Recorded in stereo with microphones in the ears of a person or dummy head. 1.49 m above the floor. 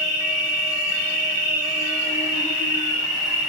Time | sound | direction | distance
0.0 | an insect | 40° left (ahead or behind) | 6.5 m